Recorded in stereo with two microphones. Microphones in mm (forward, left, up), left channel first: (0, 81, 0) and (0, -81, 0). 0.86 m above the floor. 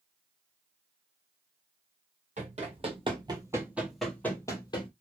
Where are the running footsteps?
50° right (ahead or behind), 1.2 m; by 4.9 s 30° left (ahead or behind), 1.0 m.